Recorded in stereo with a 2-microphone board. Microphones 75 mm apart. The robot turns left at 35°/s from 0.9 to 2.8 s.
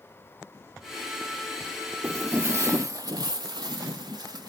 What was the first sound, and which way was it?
Footsteps, 35° right (ahead or behind).